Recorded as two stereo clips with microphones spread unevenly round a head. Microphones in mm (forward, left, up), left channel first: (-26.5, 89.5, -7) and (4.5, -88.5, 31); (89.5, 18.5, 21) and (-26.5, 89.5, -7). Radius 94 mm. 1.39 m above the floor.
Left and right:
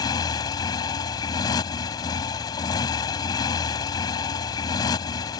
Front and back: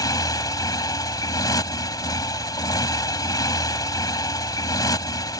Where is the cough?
No cough in this recording.